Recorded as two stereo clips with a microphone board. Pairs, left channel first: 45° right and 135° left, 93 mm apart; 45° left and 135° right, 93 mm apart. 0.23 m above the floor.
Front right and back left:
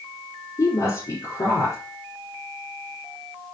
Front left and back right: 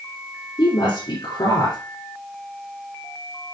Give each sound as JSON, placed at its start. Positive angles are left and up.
{"t": 0.6, "sound": "a woman speaking", "azimuth_deg": 5, "distance_m": 6.0}